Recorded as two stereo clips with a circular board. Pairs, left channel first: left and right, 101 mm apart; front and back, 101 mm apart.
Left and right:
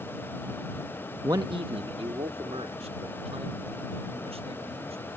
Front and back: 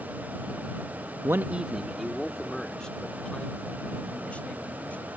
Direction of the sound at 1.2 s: 135° right.